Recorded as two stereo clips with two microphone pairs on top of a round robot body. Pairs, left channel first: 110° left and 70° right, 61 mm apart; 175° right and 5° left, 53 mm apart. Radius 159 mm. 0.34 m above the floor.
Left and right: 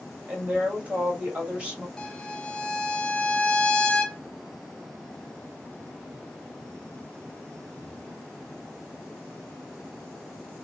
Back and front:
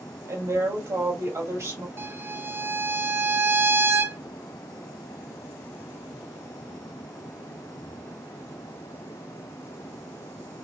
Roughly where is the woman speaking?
Ahead.